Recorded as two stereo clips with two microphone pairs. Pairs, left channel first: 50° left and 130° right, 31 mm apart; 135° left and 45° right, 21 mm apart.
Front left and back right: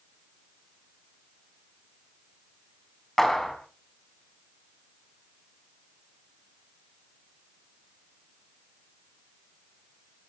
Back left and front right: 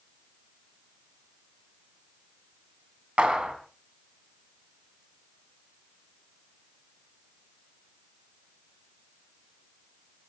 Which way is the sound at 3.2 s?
30° right.